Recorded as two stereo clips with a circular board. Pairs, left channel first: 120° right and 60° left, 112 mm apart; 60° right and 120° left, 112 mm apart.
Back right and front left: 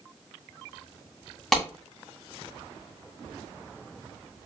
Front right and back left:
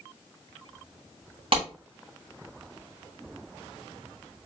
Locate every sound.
1.5 s a clap: 155° left, 2.5 m